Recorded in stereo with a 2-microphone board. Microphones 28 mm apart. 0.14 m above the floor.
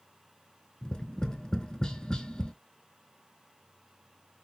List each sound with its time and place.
0.8 s tapping: 25° left (ahead or behind), 0.6 m